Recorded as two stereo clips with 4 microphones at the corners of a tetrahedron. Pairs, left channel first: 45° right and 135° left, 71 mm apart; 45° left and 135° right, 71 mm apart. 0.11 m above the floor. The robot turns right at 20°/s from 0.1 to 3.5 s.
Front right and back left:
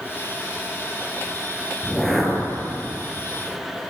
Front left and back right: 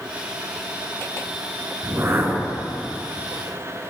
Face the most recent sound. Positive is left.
turn(degrees=-95)